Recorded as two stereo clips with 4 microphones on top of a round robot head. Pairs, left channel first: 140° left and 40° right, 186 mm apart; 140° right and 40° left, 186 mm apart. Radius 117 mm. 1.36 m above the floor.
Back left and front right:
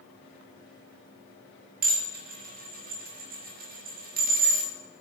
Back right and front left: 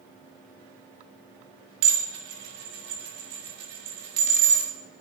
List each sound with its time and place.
1.8 s dishes clattering: 5° left, 1.8 m